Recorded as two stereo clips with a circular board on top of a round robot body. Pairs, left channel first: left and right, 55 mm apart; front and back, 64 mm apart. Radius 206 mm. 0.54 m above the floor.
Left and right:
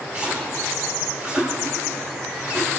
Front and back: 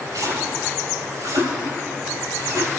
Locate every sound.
0.1 s a splash: 150° right, 8 m